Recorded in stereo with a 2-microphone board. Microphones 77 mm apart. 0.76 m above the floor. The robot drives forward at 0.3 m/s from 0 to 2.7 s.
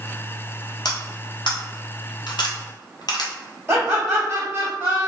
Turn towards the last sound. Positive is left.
turn(degrees=-30)  # may be behind; listen again after turning